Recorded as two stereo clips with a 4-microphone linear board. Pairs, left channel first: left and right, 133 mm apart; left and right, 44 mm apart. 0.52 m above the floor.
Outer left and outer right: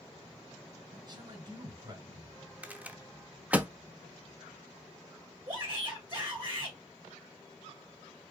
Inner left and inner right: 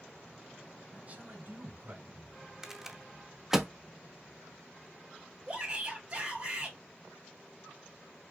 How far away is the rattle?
About 0.7 m.